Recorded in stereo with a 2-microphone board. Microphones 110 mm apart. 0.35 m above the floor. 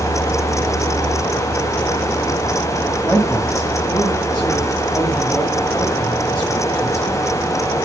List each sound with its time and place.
3.0 s a man speaking: 10° left (ahead or behind), 2 m